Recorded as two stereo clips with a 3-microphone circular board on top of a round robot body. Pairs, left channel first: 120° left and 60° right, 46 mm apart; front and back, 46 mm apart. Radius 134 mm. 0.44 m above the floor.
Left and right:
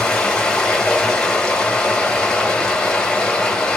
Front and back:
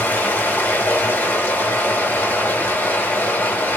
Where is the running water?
45° left, 1.9 m.